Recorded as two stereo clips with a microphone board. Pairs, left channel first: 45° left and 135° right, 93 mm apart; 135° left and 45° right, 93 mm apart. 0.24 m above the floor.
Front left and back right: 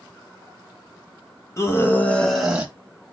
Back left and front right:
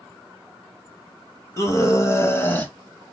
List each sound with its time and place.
1.6 s a scream: 90° left, 1.8 m; by 2.7 s 175° right, 1.3 m